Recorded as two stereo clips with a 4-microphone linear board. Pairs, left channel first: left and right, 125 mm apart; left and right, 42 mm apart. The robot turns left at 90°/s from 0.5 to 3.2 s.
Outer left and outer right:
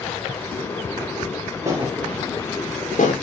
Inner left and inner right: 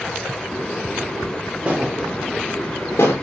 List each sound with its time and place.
1.6 s a thud: 25° right (ahead or behind), 7 m; by 3.1 s 70° left (ahead or behind), 7 m